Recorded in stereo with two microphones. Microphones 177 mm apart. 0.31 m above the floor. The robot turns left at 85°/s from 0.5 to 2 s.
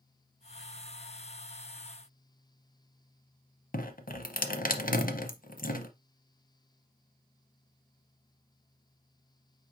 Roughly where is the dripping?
Left.